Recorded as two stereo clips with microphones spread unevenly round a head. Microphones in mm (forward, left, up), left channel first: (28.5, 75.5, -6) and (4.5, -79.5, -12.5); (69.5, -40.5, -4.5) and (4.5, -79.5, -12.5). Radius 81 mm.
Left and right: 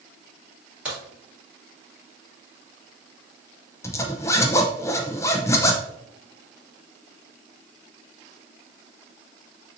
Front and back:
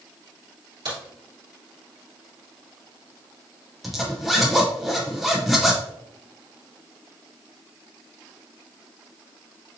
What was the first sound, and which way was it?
A crack, straight behind.